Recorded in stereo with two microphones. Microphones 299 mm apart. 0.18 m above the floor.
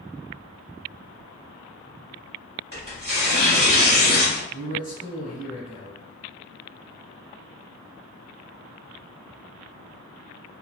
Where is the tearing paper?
35° left (ahead or behind), 1.6 m.